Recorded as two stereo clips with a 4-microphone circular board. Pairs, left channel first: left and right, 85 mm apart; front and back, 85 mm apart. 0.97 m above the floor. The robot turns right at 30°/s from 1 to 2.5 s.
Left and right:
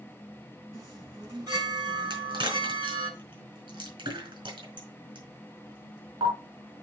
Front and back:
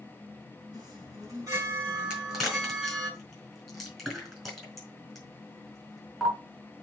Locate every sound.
0.7 s a chime: 140° right, 5 m; by 3.1 s 95° right, 5 m
2.1 s a crack: 100° right, 4.5 m; by 6.3 s 90° right, 4.5 m